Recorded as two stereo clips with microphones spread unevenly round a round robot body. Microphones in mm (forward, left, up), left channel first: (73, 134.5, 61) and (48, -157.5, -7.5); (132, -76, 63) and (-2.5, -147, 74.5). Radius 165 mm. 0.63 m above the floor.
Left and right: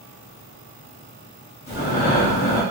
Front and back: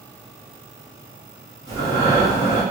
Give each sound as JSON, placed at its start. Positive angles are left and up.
{"t": 1.7, "sound": "breathing", "azimuth_deg": 110, "distance_m": 1.3}